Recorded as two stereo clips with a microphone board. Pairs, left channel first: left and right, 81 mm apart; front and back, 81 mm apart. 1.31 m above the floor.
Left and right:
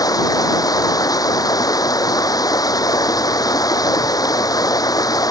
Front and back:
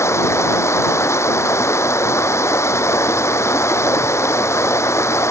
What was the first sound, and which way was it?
Running water, 55° left.